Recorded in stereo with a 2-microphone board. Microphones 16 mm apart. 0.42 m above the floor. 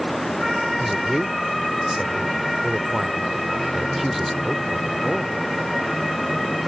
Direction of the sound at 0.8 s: 5° right (ahead or behind).